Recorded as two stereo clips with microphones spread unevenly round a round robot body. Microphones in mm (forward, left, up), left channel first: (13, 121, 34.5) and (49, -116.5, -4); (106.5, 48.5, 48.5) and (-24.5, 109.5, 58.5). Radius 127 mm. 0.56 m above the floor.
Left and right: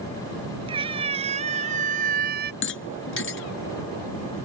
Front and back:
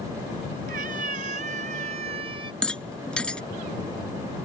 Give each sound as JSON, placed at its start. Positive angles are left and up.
{"t": 0.7, "sound": "a cat meowing", "azimuth_deg": -155}
{"t": 2.6, "sound": "a rattle", "azimuth_deg": 60}